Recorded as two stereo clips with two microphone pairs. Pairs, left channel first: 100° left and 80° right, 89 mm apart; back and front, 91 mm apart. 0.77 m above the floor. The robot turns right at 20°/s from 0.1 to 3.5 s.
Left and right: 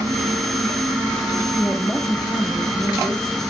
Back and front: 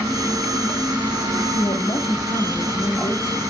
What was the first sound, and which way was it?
A woman speaking, 175° right.